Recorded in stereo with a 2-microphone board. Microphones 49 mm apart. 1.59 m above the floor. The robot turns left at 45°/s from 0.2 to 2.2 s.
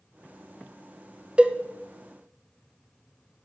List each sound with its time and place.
1.4 s a cowbell: 20° right (ahead or behind), 0.6 m